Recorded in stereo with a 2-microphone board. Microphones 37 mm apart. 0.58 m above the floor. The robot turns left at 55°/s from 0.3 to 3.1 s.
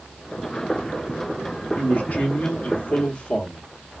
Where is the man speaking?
120° left, 0.8 m; by 3.7 s 45° left, 0.8 m.